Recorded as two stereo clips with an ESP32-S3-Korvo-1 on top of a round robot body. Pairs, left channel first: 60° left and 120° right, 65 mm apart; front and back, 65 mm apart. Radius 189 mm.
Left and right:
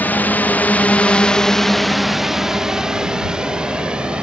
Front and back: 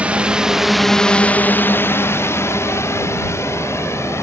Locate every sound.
0.0 s a drone: 115° left; by 4.2 s 45° right